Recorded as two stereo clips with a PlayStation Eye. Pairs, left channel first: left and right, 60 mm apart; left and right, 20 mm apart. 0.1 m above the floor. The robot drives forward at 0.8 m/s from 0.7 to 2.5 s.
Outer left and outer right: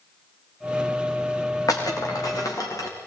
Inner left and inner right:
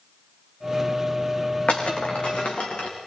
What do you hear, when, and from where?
1.7 s breaking glass: 80° left, 5.5 m